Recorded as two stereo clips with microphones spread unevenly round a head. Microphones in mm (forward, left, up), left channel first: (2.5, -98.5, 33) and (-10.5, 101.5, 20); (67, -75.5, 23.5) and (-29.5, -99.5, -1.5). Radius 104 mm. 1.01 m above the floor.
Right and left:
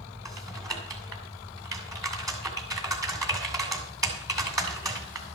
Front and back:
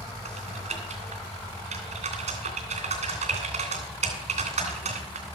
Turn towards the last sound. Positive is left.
turn(degrees=170)